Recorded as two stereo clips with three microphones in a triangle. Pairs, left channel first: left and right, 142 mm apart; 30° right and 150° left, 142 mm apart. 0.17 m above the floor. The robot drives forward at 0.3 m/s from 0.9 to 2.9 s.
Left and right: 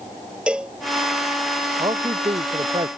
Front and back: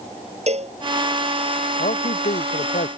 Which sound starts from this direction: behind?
A cowbell, at 0.5 s.